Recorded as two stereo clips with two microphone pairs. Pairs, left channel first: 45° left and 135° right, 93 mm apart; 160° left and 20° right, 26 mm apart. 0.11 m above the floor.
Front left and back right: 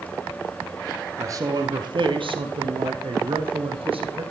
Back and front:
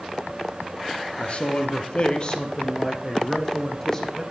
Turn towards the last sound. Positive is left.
turn(degrees=-125)